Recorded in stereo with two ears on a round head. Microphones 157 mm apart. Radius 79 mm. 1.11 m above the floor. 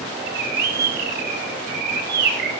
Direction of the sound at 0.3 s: 60° right (ahead or behind).